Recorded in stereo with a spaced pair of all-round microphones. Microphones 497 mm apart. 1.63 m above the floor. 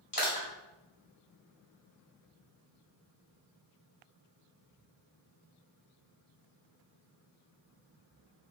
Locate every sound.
0.1 s crushing: 45° left (ahead or behind), 1.7 m